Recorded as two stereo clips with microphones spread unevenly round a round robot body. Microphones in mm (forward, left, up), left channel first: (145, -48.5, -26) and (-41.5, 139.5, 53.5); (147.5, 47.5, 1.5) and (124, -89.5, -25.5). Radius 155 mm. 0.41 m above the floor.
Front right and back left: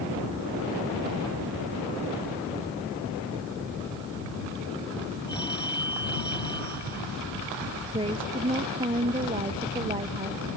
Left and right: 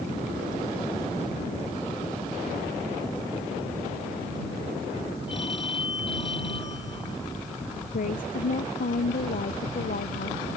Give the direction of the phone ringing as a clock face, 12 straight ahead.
11 o'clock.